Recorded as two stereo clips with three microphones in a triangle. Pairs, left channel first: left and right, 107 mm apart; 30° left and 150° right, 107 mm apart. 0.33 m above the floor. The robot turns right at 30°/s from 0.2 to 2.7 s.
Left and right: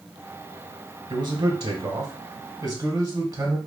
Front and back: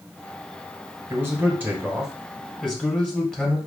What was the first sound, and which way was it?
A man speaking, 100° right.